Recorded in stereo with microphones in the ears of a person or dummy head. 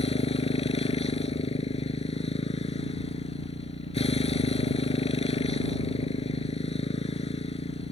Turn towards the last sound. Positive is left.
turn(degrees=30)  # may be behind; listen again after turning